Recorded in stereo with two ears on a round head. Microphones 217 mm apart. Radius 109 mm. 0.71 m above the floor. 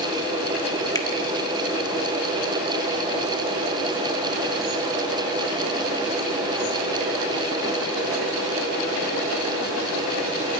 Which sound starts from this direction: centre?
A finger snap, at 0.9 s.